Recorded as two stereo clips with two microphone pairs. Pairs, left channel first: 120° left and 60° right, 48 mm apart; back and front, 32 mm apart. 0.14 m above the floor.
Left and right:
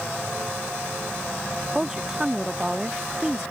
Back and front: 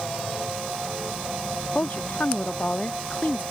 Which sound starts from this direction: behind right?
A woman speaking, at 1.8 s.